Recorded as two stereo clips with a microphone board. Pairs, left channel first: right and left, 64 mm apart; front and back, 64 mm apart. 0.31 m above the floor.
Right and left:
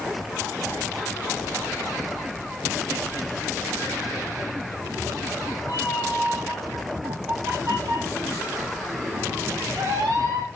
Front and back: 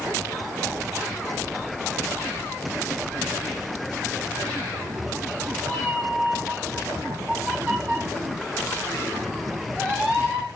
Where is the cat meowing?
130° left, 9 m; by 10.5 s 110° left, 6.5 m.